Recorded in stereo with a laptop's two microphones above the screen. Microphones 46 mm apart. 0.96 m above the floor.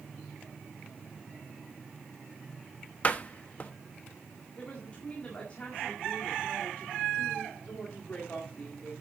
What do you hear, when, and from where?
3.0 s a door slam: 35° left (ahead or behind), 1.0 m
4.6 s a woman speaking: 30° left (ahead or behind), 1.8 m